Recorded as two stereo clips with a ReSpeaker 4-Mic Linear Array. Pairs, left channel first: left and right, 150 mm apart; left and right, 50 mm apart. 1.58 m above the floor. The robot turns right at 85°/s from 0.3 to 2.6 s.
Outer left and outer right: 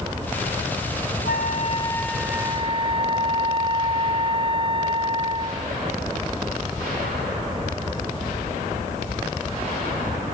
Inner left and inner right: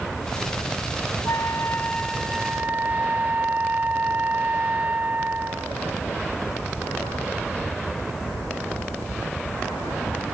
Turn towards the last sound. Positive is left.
turn(degrees=-145)